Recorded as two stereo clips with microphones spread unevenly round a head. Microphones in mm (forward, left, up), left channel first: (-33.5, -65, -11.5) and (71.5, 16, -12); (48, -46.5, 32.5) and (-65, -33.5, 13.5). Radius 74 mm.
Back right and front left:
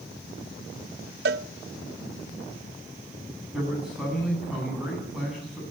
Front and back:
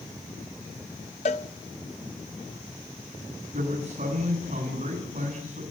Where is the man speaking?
125° left, 9.5 m.